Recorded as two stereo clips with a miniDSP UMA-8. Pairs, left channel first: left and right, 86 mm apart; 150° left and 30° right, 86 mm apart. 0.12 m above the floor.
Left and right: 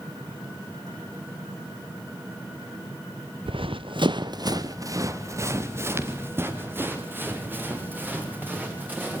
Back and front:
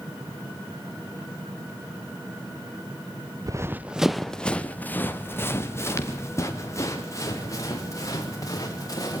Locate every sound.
3.5 s running footsteps: 75° right, 0.8 m; by 9.2 s 160° right, 6.5 m